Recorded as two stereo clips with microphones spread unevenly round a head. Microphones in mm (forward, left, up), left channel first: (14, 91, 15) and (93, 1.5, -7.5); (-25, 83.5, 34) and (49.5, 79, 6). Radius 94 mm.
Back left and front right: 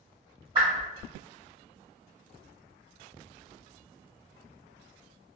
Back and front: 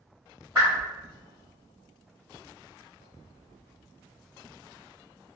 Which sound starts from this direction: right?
A whoosh, at 0.6 s.